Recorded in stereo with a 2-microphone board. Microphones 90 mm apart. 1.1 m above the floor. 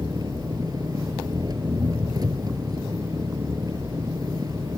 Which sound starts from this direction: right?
An engine running, at 0.0 s.